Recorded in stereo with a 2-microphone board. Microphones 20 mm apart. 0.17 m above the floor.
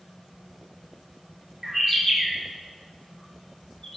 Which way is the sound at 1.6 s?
25° right (ahead or behind).